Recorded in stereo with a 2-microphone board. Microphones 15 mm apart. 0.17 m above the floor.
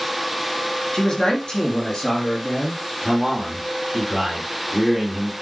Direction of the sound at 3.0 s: 5° right (ahead or behind).